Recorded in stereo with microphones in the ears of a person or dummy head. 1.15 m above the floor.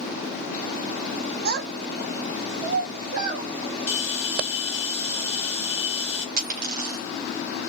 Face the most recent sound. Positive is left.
turn(degrees=-50)  # may be behind; listen again after turning